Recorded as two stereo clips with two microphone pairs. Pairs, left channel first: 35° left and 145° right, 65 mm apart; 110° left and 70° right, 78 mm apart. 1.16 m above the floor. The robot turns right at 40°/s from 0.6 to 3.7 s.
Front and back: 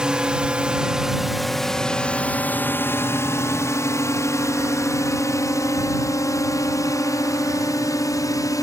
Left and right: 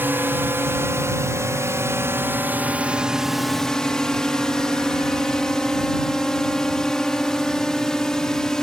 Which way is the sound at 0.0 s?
85° right.